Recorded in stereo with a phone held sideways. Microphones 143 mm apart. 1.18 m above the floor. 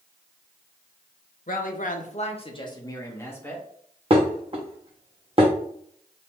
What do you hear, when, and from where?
1.5 s a woman speaking: 65° left (ahead or behind), 0.8 m; by 3.6 s 10° left (ahead or behind), 1.5 m
4.1 s dishes clattering: 40° right (ahead or behind), 0.9 m